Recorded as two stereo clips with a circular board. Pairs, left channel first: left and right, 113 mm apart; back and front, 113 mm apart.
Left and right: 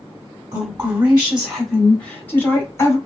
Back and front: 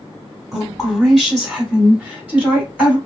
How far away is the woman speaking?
About 1.3 m.